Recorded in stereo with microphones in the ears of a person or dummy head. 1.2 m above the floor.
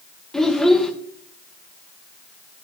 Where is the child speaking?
Centre (ahead or behind), 0.6 m.